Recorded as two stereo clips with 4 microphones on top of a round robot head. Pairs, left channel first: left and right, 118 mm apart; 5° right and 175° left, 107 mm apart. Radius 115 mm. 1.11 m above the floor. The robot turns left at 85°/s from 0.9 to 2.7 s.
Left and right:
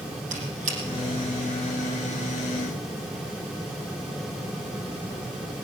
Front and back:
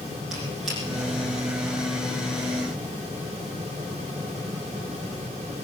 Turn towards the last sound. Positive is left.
turn(degrees=110)